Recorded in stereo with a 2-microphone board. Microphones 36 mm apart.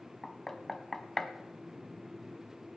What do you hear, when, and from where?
0.2 s knocking: 10° left (ahead or behind), 0.8 m